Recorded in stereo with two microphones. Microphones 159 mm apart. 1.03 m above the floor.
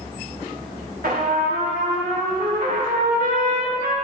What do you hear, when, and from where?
1.0 s a trumpet: 75° right (ahead or behind), 2.5 m